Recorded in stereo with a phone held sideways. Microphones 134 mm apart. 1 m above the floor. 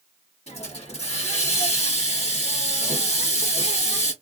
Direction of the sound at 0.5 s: 50° left (ahead or behind).